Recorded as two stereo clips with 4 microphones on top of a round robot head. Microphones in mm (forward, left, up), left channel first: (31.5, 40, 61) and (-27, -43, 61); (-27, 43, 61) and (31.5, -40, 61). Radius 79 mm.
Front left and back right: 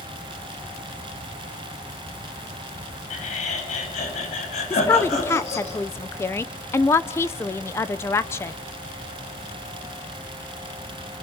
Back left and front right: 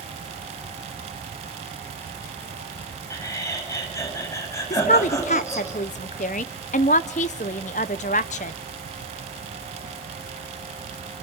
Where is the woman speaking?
120° left, 0.8 m.